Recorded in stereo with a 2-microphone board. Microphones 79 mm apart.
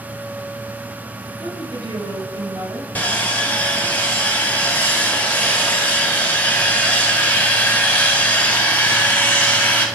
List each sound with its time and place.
1.4 s a woman speaking: 75° right (ahead or behind), 5 m; by 2.9 s 80° right, 5 m
3.0 s sawing: 25° left (ahead or behind), 2.5 m